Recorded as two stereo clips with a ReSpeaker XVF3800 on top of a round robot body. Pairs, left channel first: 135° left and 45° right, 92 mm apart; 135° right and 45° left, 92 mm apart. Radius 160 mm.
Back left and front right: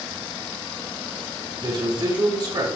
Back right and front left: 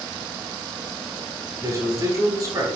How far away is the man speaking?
About 4.5 m.